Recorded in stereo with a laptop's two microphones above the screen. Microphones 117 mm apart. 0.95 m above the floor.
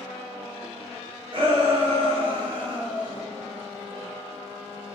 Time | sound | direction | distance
1.3 | a shout | 45° right (ahead or behind) | 1.0 m